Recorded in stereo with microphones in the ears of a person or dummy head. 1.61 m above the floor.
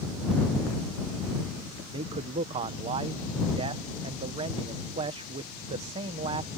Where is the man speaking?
35° right (ahead or behind).